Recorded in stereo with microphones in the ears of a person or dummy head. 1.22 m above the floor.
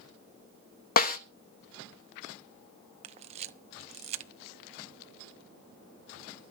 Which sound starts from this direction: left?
A snare drum, at 1.0 s.